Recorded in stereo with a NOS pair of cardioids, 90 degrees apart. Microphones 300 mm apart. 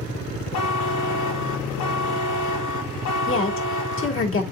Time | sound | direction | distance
0.5 | a buzzer | 70° left | 3 m
3.3 | a woman speaking | 45° left | 3.5 m